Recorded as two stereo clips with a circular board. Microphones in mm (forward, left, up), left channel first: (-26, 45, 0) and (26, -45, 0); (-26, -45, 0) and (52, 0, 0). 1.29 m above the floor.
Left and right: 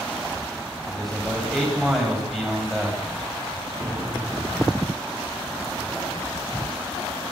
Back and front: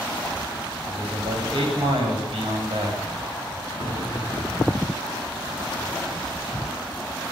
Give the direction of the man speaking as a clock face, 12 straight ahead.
11 o'clock.